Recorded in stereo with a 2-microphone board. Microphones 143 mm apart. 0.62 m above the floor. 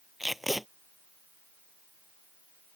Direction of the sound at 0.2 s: Centre (ahead or behind).